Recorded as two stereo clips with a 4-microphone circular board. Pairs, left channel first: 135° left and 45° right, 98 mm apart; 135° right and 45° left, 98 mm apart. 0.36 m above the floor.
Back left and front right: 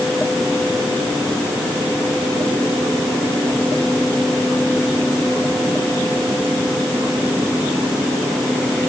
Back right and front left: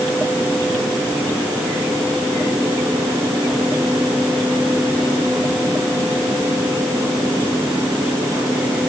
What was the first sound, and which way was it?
Only background noise.